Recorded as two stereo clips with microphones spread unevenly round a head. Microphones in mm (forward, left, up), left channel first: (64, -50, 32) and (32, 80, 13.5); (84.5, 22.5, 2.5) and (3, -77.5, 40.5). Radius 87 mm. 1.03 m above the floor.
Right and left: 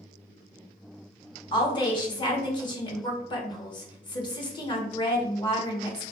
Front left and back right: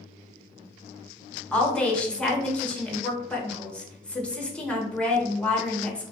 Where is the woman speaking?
20° right, 0.9 m.